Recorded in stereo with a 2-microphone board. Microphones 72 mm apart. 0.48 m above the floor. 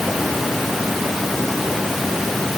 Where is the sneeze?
No sneeze in this recording.